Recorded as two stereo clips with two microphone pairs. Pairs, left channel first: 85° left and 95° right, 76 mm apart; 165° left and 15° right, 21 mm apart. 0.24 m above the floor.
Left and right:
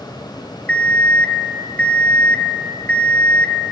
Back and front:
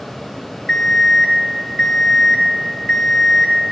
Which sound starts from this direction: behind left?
An alarm clock, at 0.7 s.